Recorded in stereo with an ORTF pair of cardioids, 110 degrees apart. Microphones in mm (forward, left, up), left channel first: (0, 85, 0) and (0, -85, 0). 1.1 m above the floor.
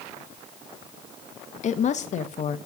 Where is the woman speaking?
45° left, 1.5 m.